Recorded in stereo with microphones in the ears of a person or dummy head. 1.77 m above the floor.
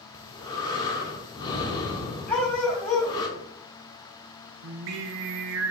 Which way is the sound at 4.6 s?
65° right (ahead or behind).